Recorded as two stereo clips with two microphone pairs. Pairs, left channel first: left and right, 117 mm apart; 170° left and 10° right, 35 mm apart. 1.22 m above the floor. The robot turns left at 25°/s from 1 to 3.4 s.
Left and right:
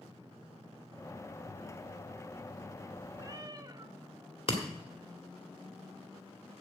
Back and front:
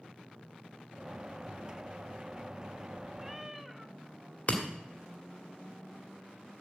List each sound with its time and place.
3.2 s a cat meowing: 85° right, 0.6 m; by 4.0 s 95° right, 0.6 m
4.5 s breaking glass: 120° left, 1.9 m